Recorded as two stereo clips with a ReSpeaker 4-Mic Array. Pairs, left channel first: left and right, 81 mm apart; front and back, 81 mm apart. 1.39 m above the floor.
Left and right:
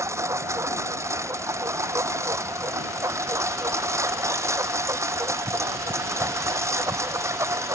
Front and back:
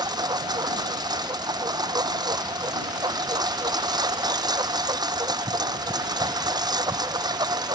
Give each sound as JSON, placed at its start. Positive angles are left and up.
{"t": 0.0, "sound": "a lawn mower", "azimuth_deg": -145}